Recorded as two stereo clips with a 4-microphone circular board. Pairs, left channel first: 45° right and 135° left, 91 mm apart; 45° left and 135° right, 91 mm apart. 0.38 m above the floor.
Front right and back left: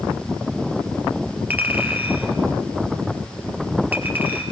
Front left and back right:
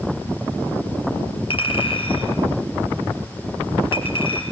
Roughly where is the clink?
Ahead left.